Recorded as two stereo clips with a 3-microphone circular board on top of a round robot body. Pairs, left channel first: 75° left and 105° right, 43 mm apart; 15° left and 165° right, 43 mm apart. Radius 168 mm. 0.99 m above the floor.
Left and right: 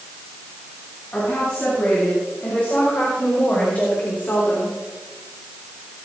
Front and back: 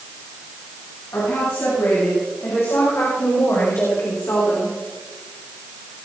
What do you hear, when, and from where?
1.1 s a woman speaking: 15° left, 8 m; by 4.8 s 40° left, 3.5 m